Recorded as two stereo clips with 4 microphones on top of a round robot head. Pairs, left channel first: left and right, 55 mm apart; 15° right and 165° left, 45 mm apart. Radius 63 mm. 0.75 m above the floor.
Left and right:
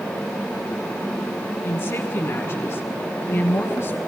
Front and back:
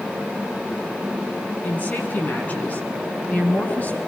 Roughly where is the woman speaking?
Ahead left.